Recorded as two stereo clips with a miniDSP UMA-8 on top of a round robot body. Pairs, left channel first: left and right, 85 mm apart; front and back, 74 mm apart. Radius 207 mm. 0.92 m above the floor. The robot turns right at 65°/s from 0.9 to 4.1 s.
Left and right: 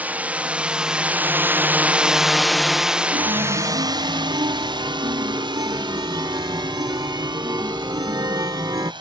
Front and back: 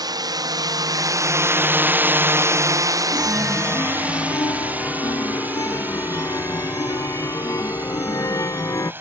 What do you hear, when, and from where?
0.0 s a drone: 160° right; by 9.0 s 115° right
3.1 s a chime: 105° right; by 8.9 s 40° right